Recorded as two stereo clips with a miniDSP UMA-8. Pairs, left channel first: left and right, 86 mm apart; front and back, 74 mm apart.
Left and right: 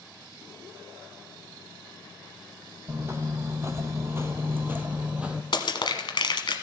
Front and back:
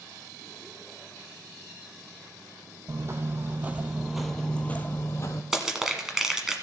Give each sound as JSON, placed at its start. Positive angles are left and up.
{"t": 2.9, "sound": "footsteps", "azimuth_deg": -140, "distance_m": 1.1}
{"t": 5.5, "sound": "crushing", "azimuth_deg": 100, "distance_m": 1.2}